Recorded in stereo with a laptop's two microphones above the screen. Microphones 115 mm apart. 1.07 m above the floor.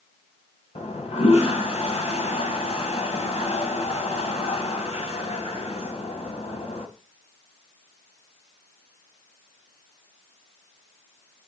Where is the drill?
No drill in this recording.